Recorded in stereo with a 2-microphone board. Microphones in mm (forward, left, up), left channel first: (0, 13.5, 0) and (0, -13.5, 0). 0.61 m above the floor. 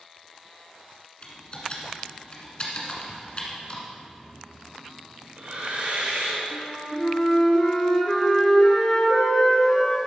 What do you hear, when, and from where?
1.2 s typing on a keyboard: 40° left (ahead or behind), 1.7 m
3.9 s breathing: 65° right (ahead or behind), 3 m
6.5 s a flute: 25° left (ahead or behind), 1.7 m